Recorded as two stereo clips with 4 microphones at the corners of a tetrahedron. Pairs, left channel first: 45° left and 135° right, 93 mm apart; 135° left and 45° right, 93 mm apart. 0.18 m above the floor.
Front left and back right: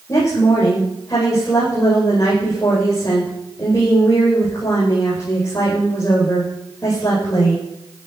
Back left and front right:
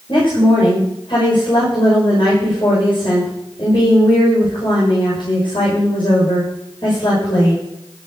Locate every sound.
0.1 s a woman speaking: 105° left, 9 m